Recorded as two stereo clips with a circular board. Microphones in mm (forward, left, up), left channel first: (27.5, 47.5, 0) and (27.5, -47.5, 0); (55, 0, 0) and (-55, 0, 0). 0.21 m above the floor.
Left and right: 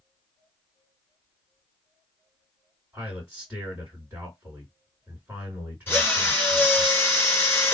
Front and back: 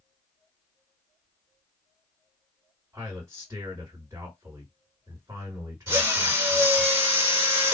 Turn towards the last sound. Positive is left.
turn(degrees=140)